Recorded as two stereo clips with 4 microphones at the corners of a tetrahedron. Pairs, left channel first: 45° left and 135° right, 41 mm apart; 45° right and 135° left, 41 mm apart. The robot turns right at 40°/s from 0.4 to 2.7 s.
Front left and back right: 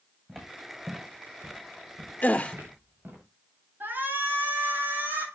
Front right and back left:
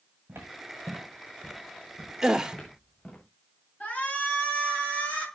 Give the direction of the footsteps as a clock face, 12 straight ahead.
7 o'clock.